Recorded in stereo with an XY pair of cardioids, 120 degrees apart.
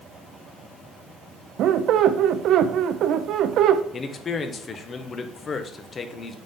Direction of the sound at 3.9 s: 35° left.